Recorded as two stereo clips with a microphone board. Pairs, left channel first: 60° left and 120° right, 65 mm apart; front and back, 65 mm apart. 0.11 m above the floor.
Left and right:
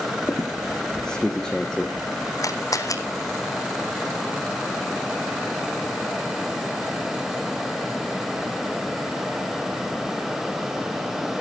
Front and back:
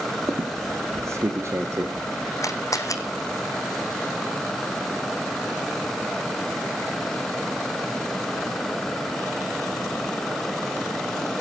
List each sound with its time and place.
0.2 s a squeak: 140° left, 2.5 m
2.4 s a camera shutter: 30° left, 1.7 m